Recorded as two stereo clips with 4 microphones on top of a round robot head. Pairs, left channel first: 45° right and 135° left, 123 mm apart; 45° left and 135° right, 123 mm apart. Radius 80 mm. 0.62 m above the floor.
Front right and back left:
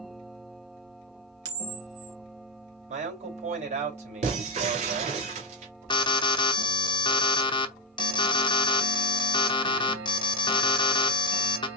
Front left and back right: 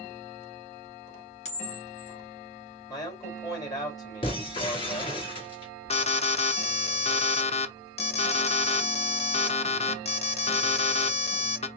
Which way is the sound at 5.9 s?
10° left.